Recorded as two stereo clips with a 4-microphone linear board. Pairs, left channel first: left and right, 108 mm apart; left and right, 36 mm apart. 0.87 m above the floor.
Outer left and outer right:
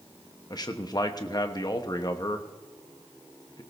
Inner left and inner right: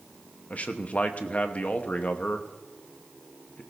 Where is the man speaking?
40° left (ahead or behind), 1.1 m.